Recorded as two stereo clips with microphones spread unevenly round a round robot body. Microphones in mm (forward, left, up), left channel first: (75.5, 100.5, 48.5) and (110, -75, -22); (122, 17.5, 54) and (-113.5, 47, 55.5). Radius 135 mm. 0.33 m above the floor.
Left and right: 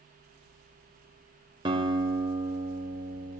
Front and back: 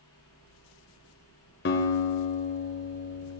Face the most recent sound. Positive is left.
turn(degrees=-40)